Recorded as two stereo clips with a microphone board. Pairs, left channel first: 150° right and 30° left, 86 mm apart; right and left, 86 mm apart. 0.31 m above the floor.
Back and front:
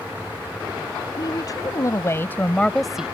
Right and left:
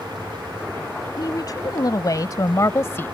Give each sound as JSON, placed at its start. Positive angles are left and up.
{"t": 1.2, "sound": "a woman speaking", "azimuth_deg": -125}